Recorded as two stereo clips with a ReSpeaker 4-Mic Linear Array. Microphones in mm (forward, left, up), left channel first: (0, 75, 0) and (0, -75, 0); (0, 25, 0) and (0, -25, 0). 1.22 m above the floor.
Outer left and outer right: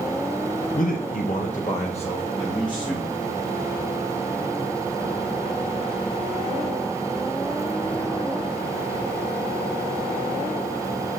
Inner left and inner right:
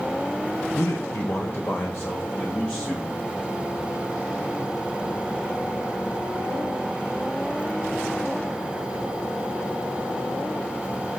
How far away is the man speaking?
About 0.6 m.